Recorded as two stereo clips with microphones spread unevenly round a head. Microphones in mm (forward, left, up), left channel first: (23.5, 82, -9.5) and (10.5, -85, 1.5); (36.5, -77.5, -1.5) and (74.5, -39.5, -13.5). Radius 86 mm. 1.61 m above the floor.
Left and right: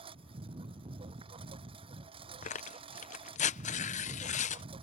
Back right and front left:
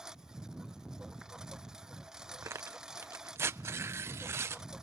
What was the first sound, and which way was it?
A lawn mower, 35° right.